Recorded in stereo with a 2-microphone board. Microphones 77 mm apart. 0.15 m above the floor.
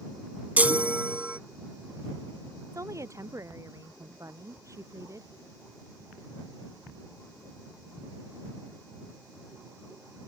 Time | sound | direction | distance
0.6 | a chime | 20° right (ahead or behind) | ?
2.7 | a woman speaking | 40° right (ahead or behind) | ?